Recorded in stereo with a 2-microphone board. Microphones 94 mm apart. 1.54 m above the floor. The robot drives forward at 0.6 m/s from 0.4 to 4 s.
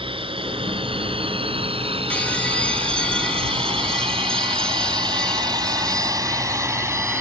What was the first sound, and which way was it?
A drone, 75° right (ahead or behind).